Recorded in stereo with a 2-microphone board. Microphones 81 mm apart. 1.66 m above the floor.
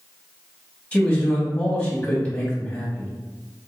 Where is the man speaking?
20° left (ahead or behind), 1.7 m.